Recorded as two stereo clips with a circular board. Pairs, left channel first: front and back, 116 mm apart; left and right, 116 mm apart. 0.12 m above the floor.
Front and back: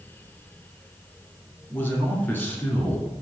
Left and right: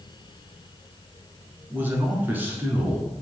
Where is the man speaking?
45° right, 1.2 m.